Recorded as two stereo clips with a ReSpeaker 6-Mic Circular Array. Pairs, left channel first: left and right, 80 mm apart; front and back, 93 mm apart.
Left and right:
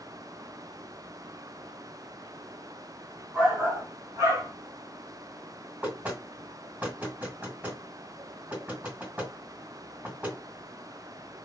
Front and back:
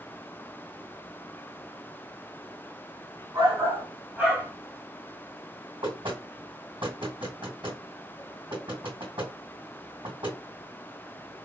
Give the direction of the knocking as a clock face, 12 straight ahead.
5 o'clock.